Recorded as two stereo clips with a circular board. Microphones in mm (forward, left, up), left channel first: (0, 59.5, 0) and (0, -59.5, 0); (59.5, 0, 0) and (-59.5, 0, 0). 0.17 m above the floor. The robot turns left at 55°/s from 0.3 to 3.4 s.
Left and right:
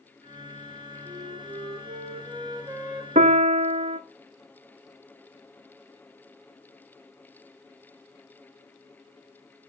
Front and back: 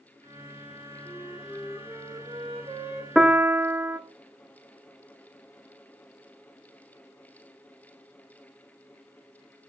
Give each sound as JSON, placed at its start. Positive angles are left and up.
{"t": 1.1, "sound": "a flute", "azimuth_deg": -65, "distance_m": 1.1}
{"t": 3.1, "sound": "a piano", "azimuth_deg": -95, "distance_m": 0.5}